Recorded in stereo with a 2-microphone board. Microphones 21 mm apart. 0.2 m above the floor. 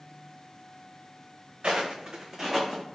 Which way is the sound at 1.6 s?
65° right (ahead or behind).